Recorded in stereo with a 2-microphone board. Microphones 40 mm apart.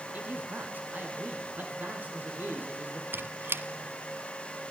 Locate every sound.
0.1 s a man speaking: 50° right (ahead or behind), 4 m; by 3.0 s 55° right (ahead or behind), 6.5 m
3.1 s a squeak: 70° right (ahead or behind), 0.9 m